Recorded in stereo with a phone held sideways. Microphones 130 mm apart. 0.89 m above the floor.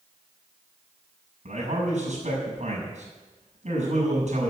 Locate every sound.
1.4 s a man speaking: 60° right (ahead or behind), 6 m